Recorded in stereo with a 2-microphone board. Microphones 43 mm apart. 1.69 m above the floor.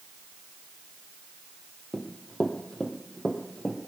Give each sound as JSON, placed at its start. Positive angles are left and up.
{"t": 1.9, "sound": "running footsteps", "side_deg": 15, "distance_m": 2.0}